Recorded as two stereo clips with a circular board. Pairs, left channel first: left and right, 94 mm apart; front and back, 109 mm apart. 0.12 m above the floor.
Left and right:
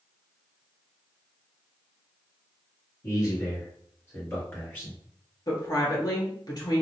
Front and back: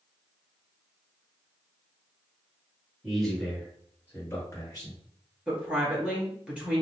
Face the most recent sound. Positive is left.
turn(degrees=105)